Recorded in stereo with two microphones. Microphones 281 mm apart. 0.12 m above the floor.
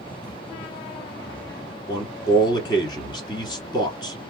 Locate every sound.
1.9 s a man speaking: 15° left (ahead or behind), 1.3 m